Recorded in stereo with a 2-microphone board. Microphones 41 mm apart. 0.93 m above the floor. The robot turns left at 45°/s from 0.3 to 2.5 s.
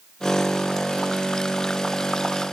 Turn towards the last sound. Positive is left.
No sound to turn to.